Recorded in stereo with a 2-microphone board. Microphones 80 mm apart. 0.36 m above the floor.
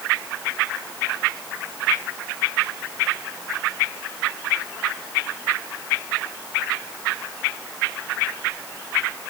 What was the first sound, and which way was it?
Only background noise.